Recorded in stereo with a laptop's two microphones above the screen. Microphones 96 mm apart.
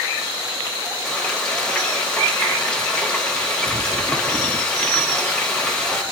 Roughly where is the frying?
Centre.